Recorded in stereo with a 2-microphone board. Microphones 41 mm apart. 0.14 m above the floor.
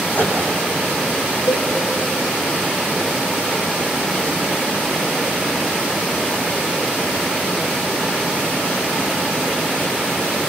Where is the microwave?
50° left (ahead or behind), 5.5 m.